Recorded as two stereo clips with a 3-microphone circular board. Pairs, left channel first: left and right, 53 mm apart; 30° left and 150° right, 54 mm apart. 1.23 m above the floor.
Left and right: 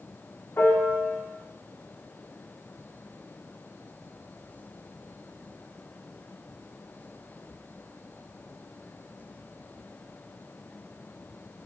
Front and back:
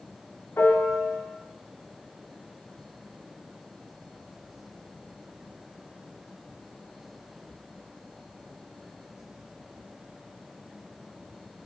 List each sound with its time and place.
0.6 s a piano: 65° left, 0.6 m